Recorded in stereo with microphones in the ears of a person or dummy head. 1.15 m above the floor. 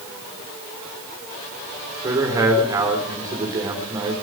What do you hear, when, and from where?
2.0 s a man speaking: 20° right (ahead or behind), 3 m